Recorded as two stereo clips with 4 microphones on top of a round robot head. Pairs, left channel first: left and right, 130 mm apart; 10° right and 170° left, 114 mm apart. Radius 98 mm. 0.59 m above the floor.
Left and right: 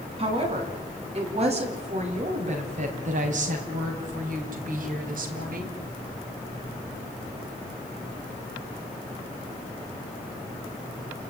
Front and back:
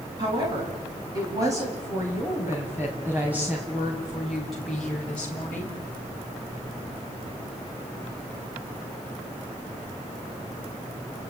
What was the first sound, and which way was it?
A woman speaking, 135° right.